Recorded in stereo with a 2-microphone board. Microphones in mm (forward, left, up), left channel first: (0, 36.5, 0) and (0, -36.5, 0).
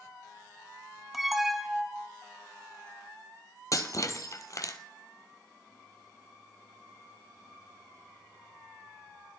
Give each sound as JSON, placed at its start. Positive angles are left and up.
{"t": 1.1, "sound": "an alarm", "side_deg": -5, "distance_m": 1.0}
{"t": 3.7, "sound": "breaking glass", "side_deg": 45, "distance_m": 1.1}